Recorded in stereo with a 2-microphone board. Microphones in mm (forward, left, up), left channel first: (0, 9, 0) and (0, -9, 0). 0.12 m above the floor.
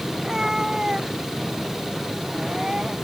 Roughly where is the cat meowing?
Right.